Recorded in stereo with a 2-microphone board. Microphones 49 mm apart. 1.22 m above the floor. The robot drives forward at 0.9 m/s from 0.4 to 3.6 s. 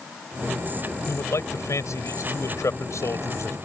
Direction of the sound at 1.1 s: 85° left.